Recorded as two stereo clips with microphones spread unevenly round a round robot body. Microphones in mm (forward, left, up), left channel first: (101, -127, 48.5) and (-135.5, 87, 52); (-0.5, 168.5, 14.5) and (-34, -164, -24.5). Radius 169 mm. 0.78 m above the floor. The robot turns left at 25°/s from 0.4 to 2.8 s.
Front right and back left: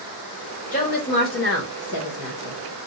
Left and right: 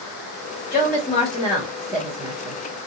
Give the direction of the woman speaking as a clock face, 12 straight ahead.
11 o'clock.